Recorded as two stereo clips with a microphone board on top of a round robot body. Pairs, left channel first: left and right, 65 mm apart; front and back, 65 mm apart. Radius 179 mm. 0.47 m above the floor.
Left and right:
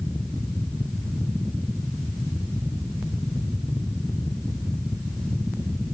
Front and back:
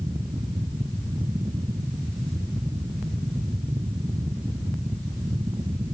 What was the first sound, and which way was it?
Only background noise.